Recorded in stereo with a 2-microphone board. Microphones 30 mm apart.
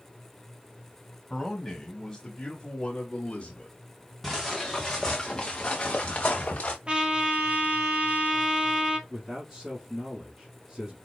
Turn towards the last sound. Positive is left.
turn(degrees=-15)  # may be behind; listen again after turning